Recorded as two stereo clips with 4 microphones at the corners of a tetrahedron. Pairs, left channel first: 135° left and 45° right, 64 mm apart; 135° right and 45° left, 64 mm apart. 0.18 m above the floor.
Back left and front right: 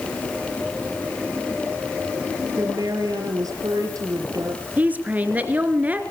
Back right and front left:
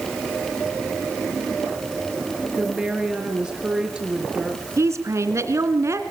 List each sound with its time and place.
2.6 s a woman speaking: 30° right, 4 m
4.8 s a woman speaking: 15° left, 2.5 m